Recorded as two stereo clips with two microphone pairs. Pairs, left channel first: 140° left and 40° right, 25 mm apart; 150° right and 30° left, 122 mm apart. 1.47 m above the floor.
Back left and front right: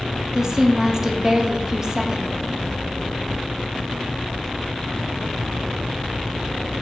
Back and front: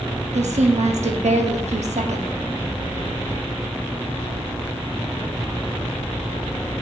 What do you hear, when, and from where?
0.3 s a woman speaking: 25° left, 0.5 m